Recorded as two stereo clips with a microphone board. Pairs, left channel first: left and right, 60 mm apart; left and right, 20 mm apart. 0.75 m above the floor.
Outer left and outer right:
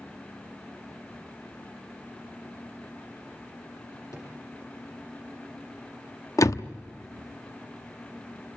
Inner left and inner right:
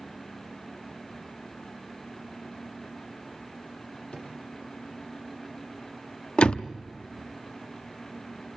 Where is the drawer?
75° left (ahead or behind), 7 m.